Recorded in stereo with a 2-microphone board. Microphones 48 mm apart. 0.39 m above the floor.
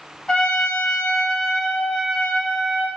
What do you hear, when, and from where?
0.3 s a trumpet: 20° left (ahead or behind), 0.9 m